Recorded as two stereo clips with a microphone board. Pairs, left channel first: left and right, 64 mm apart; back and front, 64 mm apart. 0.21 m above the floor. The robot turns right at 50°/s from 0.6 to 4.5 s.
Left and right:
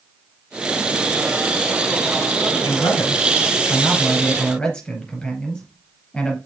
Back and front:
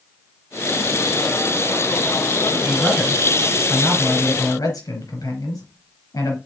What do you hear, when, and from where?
2.6 s a man speaking: 75° left, 4 m; by 6.4 s 170° left, 4 m